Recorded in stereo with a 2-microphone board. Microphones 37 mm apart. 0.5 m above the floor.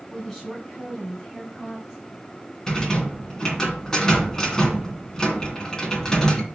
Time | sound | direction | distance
0.1 | a woman speaking | 20° left (ahead or behind) | 4.5 m
2.7 | a rattle | 15° left (ahead or behind) | 2 m